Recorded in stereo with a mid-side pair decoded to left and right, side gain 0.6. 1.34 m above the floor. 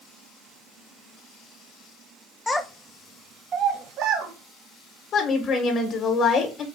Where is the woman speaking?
40° left, 1.1 m.